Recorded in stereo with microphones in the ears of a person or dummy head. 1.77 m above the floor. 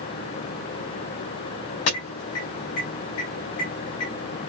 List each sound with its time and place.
1.9 s an alarm: 70° left (ahead or behind), 3.5 m